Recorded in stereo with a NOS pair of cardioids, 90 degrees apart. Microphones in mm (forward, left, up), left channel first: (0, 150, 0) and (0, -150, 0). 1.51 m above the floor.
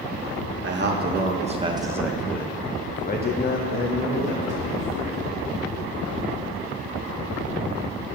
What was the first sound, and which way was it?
A man speaking, 40° right.